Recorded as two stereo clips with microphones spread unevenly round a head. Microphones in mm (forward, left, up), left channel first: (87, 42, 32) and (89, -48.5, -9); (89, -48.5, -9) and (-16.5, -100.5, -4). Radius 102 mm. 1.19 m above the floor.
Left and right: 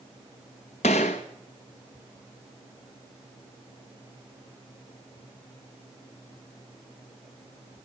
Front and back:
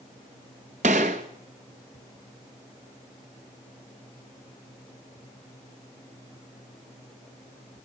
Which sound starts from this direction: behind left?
A gunshot, at 0.8 s.